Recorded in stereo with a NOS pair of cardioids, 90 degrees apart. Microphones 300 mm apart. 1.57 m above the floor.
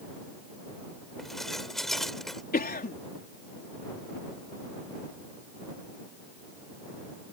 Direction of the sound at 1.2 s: Straight ahead.